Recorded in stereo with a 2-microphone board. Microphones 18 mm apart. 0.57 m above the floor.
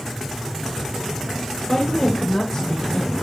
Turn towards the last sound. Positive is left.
turn(degrees=30)  # may be behind; listen again after turning